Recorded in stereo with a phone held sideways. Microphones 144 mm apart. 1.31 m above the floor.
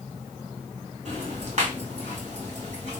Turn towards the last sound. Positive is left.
turn(degrees=-50)  # may be behind; listen again after turning